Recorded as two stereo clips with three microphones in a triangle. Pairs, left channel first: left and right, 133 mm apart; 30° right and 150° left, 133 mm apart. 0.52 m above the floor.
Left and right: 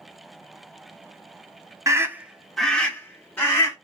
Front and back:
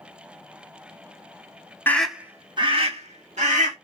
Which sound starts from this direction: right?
A scream, at 1.9 s.